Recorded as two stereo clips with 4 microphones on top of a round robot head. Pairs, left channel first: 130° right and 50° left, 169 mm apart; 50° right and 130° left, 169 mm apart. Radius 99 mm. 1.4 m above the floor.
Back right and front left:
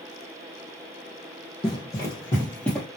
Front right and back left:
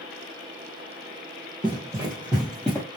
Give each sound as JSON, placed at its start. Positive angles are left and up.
{"t": 1.6, "sound": "running footsteps", "azimuth_deg": 180, "distance_m": 1.6}